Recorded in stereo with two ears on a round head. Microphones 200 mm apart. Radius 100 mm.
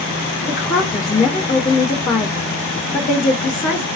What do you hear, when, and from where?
0.5 s a woman speaking: 35° left (ahead or behind), 0.9 m